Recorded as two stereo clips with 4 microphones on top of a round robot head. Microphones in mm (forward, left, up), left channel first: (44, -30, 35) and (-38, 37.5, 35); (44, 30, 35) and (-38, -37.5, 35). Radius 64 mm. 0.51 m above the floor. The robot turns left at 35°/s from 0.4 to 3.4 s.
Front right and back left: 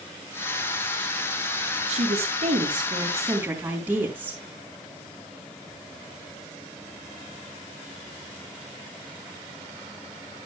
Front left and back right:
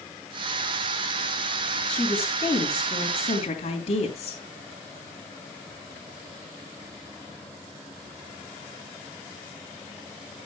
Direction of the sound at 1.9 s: 120° left.